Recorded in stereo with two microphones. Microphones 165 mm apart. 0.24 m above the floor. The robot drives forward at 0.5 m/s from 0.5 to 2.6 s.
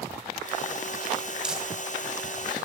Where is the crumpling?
5° right (ahead or behind), 1.3 m.